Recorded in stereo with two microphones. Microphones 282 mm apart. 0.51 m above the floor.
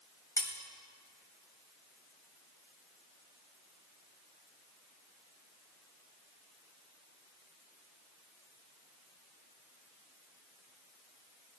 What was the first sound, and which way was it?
Cutlery clinking, 10° left (ahead or behind).